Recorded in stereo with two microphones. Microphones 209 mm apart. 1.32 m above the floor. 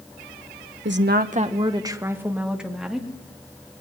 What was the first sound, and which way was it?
A woman speaking, 70° right (ahead or behind).